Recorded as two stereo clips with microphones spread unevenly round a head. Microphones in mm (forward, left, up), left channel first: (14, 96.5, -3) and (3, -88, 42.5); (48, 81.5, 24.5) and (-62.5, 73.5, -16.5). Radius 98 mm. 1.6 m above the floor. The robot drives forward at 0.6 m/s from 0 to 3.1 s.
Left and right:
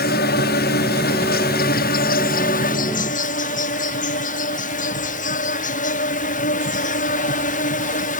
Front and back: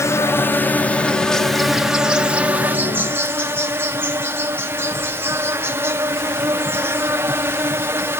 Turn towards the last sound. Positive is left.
turn(degrees=125)